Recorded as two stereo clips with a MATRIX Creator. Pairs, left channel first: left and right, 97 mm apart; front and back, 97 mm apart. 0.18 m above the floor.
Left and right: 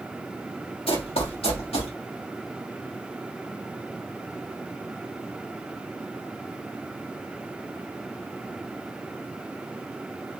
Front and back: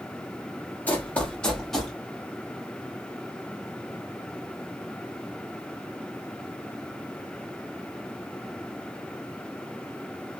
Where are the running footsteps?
70° left, 1.7 m; by 1.9 s 90° left, 2.5 m.